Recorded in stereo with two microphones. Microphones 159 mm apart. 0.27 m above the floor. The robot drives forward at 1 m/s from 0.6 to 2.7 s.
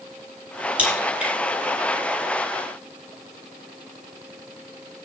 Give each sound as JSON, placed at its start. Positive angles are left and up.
{"t": 0.8, "sound": "a crack", "side_deg": -10, "distance_m": 6.5}